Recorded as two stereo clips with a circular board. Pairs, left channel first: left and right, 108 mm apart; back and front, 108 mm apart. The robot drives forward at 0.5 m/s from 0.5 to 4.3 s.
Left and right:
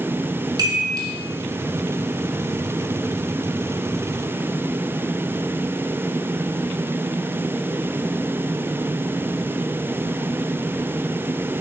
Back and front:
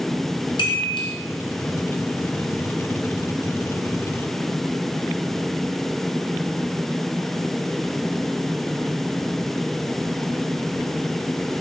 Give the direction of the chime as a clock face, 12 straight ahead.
5 o'clock.